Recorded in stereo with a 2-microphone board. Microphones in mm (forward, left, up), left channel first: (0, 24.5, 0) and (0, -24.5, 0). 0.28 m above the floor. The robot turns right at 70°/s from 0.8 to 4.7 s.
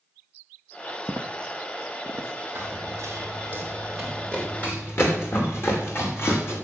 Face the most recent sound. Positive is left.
turn(degrees=60)  # may be behind; listen again after turning